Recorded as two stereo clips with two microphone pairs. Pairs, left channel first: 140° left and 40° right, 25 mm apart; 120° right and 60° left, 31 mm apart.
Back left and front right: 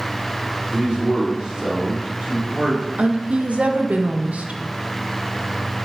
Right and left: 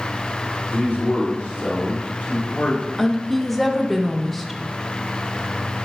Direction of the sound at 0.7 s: 90° right.